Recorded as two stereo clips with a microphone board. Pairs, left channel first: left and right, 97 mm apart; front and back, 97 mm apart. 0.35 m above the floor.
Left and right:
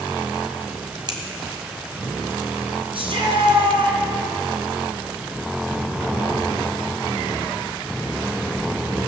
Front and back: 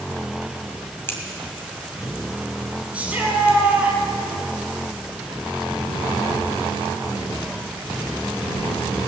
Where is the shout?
105° right, 3 m.